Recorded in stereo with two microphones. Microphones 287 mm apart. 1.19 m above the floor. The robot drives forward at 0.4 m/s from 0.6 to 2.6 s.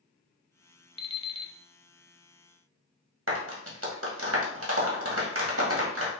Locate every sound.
1.0 s an alarm clock: 20° left (ahead or behind), 0.5 m; by 1.5 s 15° left (ahead or behind), 0.6 m
3.3 s a clap: 50° right (ahead or behind), 1.4 m